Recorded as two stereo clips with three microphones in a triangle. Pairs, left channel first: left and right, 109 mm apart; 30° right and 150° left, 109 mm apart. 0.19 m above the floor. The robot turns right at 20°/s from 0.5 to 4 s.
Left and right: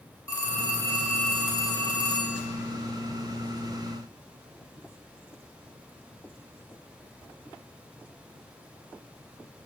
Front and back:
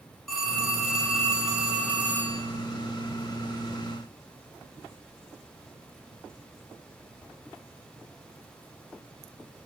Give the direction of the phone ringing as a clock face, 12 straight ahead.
10 o'clock.